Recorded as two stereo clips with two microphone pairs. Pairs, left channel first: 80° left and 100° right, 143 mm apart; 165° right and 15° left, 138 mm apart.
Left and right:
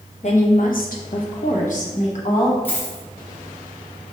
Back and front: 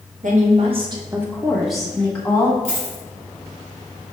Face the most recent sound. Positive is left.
turn(degrees=5)